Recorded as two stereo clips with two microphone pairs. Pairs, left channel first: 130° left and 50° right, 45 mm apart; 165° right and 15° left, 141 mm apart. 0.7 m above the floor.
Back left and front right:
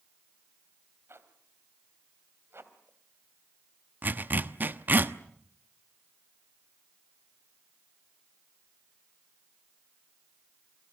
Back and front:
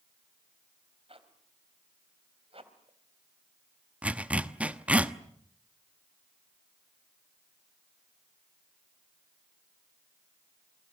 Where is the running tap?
I don't hear a running tap.